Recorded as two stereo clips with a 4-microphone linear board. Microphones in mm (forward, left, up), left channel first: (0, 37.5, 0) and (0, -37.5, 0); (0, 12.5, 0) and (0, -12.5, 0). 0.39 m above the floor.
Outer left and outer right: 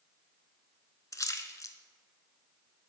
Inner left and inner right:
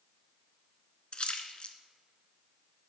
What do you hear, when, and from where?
1.1 s a splash: 45° left (ahead or behind), 0.6 m